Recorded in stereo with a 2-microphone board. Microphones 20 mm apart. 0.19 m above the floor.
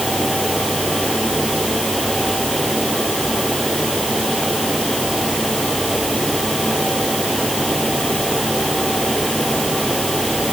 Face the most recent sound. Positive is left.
No sound to turn to.